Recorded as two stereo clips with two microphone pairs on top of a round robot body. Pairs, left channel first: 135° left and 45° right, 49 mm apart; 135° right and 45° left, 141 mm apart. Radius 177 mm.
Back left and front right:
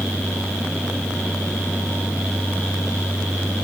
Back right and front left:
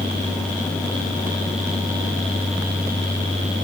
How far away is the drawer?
I don't hear a drawer.